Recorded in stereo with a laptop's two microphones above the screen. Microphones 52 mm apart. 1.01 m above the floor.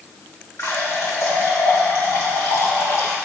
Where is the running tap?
75° left (ahead or behind), 2 m.